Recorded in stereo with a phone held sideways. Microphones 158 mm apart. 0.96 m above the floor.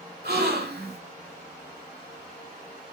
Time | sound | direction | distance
0.2 | a gasp | 80° right | 2 m